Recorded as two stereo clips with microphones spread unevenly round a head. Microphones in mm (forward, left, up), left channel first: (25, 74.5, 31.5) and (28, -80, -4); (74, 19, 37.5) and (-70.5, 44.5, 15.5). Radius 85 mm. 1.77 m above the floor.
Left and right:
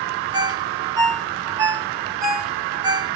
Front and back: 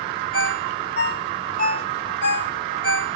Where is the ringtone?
20° right, 2.5 m.